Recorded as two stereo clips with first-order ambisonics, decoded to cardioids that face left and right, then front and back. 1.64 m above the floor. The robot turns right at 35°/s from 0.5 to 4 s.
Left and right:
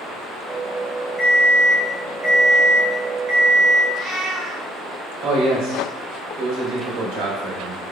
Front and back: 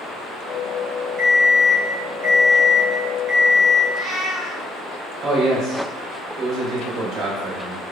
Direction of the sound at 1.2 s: 160° left.